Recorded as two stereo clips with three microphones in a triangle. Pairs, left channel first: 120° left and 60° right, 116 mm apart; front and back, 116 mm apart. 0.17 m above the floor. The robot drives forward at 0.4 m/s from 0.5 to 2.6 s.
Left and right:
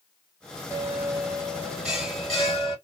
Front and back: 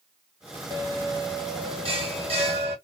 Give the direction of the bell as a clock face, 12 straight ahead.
4 o'clock.